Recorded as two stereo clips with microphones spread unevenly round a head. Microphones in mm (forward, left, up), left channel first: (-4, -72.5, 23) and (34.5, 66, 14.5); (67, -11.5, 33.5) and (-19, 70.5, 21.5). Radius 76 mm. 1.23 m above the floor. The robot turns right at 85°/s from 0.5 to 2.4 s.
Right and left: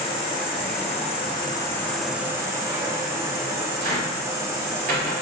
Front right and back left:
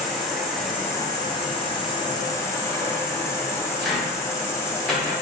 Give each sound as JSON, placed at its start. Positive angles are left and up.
{"t": 0.0, "sound": "an insect", "azimuth_deg": -140, "distance_m": 1.0}
{"t": 3.8, "sound": "a cupboard door", "azimuth_deg": 45, "distance_m": 1.7}